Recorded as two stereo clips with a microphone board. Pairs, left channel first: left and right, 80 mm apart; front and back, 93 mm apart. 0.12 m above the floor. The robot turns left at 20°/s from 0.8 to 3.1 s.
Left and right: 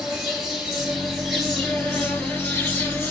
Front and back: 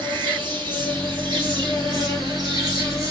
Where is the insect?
170° right, 3 m; by 3.1 s 140° left, 3 m.